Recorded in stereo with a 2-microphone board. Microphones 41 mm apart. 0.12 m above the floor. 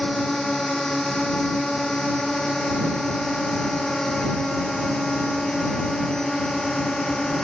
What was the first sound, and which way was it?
A drone, 10° left (ahead or behind).